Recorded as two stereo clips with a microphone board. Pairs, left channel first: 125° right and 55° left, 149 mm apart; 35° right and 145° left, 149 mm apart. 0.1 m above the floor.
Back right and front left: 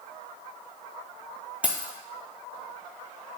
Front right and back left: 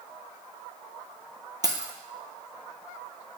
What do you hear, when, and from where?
1.6 s keys jangling: 125° left, 0.8 m